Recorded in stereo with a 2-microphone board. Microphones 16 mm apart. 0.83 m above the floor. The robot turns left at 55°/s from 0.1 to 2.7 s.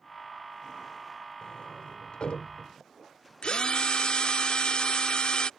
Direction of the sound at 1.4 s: 50° left (ahead or behind).